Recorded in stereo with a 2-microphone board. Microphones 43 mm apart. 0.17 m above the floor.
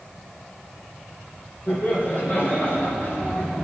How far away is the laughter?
About 6 m.